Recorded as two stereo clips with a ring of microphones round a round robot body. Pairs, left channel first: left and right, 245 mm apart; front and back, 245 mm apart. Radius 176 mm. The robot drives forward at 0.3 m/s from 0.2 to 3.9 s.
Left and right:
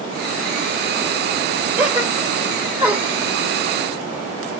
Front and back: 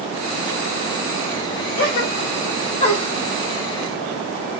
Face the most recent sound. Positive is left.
turn(degrees=-40)